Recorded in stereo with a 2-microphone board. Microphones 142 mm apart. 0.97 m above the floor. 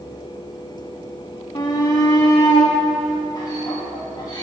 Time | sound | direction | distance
1.6 | a shout | 30° left (ahead or behind) | 0.7 m